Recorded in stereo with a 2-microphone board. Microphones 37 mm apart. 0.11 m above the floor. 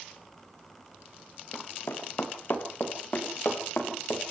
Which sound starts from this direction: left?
Running footsteps, at 1.5 s.